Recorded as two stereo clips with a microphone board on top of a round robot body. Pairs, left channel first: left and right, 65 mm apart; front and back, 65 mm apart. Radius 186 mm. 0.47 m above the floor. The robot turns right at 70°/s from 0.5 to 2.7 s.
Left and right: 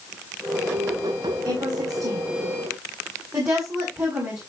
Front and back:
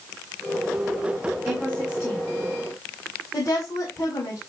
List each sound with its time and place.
1.4 s a woman speaking: 130° right, 5.5 m; by 4.4 s 40° right, 5.5 m